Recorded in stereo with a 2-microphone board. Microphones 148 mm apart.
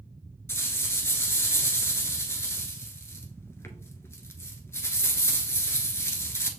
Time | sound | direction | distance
0.5 | a rattle | 15° left (ahead or behind) | 0.8 m